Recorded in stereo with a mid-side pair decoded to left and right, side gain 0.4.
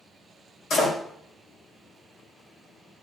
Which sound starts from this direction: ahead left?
A door slam, at 0.7 s.